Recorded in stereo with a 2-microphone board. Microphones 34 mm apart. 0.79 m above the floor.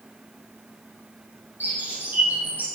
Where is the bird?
55° right (ahead or behind), 6 m.